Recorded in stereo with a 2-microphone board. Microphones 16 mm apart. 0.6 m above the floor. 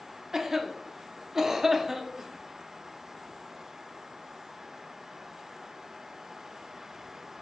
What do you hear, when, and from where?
0.3 s a cough: 20° right (ahead or behind), 0.6 m